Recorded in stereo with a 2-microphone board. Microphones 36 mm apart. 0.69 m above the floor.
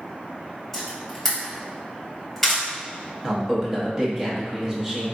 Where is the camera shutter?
Centre (ahead or behind), 1.8 m.